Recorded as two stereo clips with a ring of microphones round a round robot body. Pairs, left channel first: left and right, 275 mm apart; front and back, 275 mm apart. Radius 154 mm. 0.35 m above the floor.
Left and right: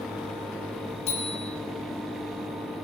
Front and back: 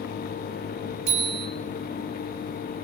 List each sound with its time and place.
1.1 s a bicycle bell: 160° left, 5.5 m